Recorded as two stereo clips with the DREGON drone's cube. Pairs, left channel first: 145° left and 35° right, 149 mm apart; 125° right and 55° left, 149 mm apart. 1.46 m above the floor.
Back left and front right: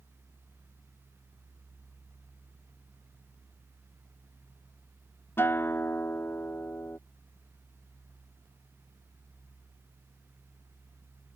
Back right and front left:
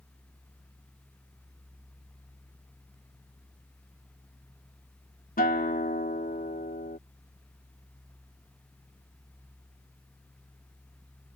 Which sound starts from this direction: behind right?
A guitar, at 5.4 s.